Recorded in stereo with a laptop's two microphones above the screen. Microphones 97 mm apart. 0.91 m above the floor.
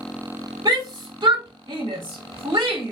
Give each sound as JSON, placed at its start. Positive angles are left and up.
{"t": 0.7, "sound": "a shout", "side_deg": -45, "distance_m": 4.0}